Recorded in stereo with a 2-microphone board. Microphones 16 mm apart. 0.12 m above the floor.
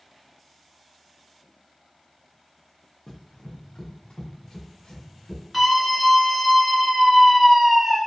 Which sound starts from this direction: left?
Running footsteps, at 3.1 s.